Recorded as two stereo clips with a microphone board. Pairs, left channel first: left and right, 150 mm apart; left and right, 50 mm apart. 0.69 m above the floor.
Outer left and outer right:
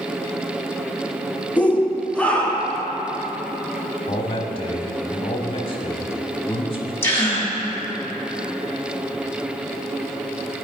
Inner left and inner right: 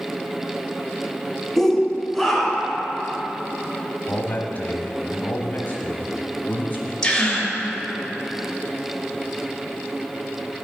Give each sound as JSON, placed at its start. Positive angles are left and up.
{"t": 1.6, "sound": "a shout", "side_deg": 10, "distance_m": 0.5}
{"t": 4.1, "sound": "a man speaking", "side_deg": 35, "distance_m": 1.0}
{"t": 7.0, "sound": "a gasp", "side_deg": 15, "distance_m": 1.3}